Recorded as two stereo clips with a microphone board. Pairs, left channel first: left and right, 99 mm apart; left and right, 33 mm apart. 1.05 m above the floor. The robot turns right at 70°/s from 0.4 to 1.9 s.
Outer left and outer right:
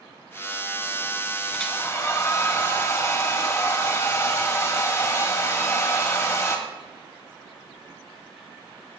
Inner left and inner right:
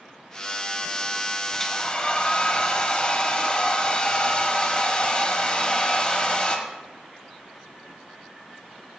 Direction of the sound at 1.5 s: Centre (ahead or behind).